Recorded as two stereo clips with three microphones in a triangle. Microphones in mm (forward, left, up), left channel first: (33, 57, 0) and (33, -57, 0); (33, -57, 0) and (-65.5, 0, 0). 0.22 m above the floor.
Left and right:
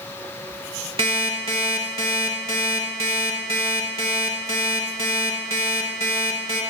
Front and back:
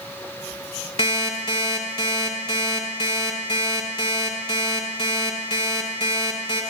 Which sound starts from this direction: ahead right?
An alarm clock, at 1.0 s.